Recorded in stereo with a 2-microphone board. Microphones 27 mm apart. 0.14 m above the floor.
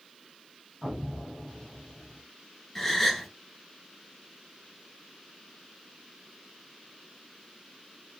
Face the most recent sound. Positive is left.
turn(degrees=0)  # may be behind; listen again after turning